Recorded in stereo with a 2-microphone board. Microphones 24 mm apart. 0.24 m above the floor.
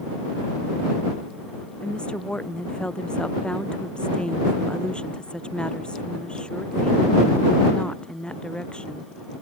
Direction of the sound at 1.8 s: 45° left (ahead or behind).